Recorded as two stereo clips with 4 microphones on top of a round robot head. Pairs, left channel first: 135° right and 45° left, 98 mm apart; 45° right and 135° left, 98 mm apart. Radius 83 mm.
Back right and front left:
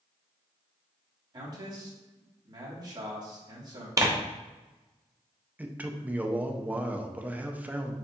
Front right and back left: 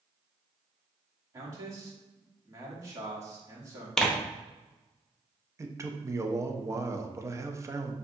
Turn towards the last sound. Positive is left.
turn(degrees=105)